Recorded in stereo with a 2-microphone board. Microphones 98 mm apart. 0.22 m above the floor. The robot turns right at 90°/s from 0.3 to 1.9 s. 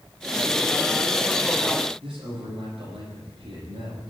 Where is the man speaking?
70° right (ahead or behind), 9 m.